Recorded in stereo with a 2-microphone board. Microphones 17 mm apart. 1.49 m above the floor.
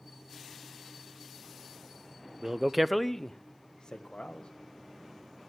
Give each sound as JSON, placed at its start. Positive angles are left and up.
{"t": 2.4, "sound": "a man speaking", "side_deg": -30, "distance_m": 0.6}